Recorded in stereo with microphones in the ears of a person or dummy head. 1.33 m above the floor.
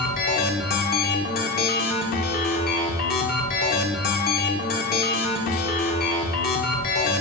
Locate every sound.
0.0 s a machine running: 45° left (ahead or behind), 1.5 m